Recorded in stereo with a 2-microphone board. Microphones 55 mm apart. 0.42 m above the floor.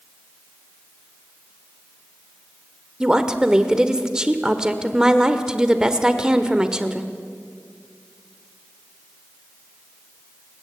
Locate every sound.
3.0 s a woman speaking: 15° right (ahead or behind), 1.3 m